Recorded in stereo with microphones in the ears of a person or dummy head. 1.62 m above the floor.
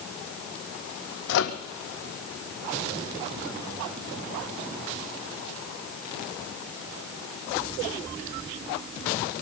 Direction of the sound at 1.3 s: 70° left (ahead or behind).